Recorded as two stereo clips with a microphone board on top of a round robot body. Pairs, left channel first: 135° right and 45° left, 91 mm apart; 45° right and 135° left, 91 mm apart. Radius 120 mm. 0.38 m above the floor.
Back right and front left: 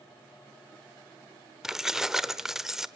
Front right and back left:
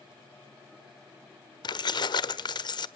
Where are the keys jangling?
40° right, 1.3 m.